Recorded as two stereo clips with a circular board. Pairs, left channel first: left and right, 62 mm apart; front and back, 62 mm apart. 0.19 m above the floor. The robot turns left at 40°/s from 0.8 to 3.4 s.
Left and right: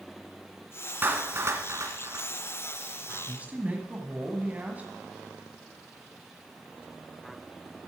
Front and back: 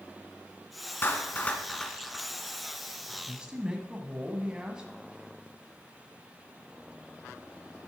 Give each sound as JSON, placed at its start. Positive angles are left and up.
{"t": 1.0, "sound": "a clap", "azimuth_deg": -40, "distance_m": 1.7}
{"t": 3.1, "sound": "a man speaking", "azimuth_deg": -105, "distance_m": 1.2}